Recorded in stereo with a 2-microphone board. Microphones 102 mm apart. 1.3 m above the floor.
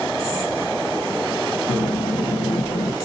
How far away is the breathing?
About 1.4 m.